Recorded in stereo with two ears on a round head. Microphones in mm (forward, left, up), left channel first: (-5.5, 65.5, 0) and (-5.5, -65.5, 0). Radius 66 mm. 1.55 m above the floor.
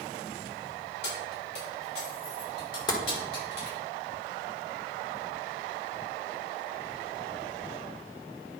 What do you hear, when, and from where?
1.0 s keys jangling: 80° left, 4 m; by 3.8 s 85° left, 6.5 m
2.9 s tapping: 30° left (ahead or behind), 1.3 m